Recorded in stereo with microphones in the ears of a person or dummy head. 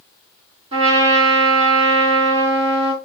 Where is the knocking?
I don't hear knocking.